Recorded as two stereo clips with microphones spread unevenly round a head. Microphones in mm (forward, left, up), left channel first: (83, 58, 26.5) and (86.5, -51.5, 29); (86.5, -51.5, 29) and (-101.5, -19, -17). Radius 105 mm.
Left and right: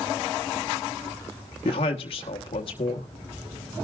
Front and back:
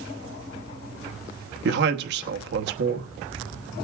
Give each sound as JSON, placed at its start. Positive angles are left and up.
{"t": 1.6, "sound": "a man speaking", "azimuth_deg": 145, "distance_m": 1.1}